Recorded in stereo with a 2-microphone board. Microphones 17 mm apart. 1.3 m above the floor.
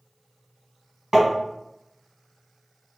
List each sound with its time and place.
1.1 s tapping: 35° right (ahead or behind), 1.4 m